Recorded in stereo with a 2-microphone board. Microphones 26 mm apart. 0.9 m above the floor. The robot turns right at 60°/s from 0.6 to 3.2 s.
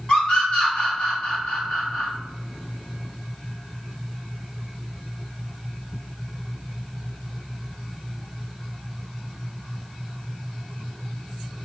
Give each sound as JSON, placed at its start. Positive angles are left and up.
{"t": 0.1, "sound": "a scream", "side_deg": 50, "distance_m": 1.4}